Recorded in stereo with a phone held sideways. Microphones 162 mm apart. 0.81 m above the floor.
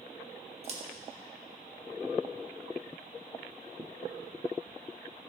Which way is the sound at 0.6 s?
40° right (ahead or behind).